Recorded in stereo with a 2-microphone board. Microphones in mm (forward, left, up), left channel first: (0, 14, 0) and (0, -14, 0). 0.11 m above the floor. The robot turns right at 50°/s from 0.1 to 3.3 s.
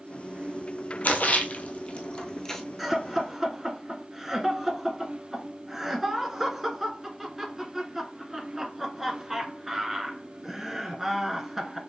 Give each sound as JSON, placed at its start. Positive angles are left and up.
{"t": 1.0, "sound": "a splash", "side_deg": 70, "distance_m": 1.0}
{"t": 2.8, "sound": "laughter", "side_deg": -5, "distance_m": 1.1}